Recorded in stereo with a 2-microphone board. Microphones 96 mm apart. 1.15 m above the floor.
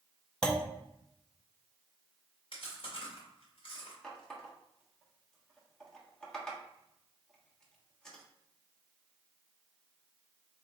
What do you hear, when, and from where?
0.4 s a clunk: 10° left (ahead or behind), 0.7 m
2.5 s chewing: 65° left (ahead or behind), 2 m
4.0 s a running tap: 5° left (ahead or behind), 1.3 m